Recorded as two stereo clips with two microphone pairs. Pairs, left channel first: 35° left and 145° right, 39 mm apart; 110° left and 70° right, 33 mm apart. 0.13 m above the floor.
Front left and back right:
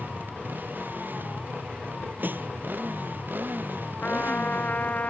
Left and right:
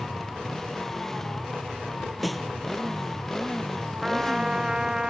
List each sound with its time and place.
0.0 s a motorcycle: 175° right
2.2 s a snare drum: 165° right
4.0 s a trumpet: 5° right